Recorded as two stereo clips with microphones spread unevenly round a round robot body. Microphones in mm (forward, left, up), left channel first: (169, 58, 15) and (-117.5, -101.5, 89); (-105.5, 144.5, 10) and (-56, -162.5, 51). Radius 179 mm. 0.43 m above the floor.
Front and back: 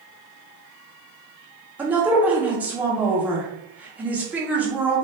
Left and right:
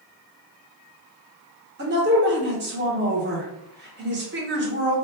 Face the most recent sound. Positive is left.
turn(degrees=-50)